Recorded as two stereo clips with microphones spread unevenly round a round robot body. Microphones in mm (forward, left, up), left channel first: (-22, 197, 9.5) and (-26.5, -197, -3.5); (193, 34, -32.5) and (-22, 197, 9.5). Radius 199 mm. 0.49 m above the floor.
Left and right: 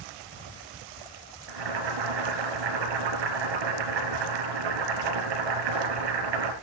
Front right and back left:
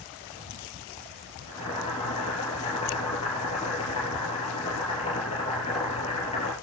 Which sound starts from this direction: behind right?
Boiling, at 1.5 s.